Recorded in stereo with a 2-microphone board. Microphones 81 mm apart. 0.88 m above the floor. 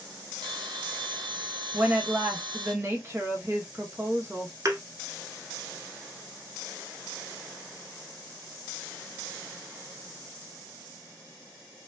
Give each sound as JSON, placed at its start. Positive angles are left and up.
{"t": 0.4, "sound": "a bell", "side_deg": -70, "distance_m": 1.3}
{"t": 1.7, "sound": "a woman speaking", "side_deg": -30, "distance_m": 0.9}
{"t": 4.7, "sound": "a thud", "side_deg": -40, "distance_m": 1.0}